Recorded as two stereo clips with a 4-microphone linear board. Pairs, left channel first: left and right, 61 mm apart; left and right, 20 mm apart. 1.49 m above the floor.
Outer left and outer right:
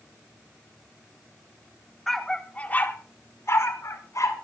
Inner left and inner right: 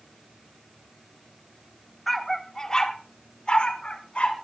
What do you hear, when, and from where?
2.1 s a dog barking: 5° left (ahead or behind), 1.6 m; by 4.3 s 65° left (ahead or behind), 2.5 m